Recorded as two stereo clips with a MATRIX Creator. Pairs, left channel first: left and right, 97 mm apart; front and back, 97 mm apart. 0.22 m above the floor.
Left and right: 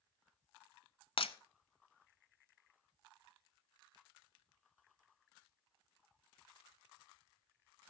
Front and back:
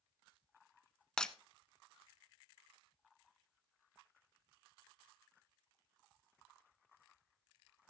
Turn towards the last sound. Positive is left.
turn(degrees=80)